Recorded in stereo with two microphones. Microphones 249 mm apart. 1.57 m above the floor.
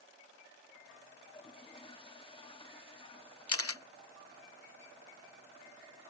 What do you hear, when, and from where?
1.2 s a toilet flushing: 20° left (ahead or behind)
3.5 s a camera shutter: 65° left (ahead or behind)